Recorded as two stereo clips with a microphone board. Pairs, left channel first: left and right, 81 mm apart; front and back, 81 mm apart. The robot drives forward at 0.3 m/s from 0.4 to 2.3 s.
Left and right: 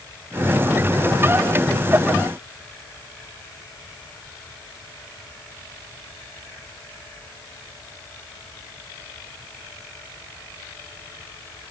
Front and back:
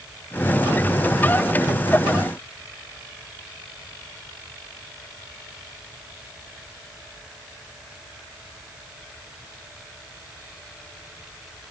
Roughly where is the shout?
I don't hear a shout.